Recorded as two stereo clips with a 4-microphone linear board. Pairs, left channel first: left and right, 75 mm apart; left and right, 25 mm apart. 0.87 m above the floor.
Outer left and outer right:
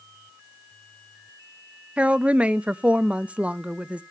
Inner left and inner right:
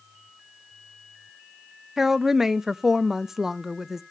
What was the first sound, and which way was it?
A woman speaking, 15° right (ahead or behind).